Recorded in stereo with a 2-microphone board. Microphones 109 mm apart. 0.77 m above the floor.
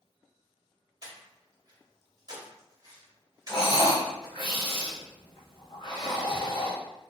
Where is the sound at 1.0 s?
35° right (ahead or behind), 0.9 m.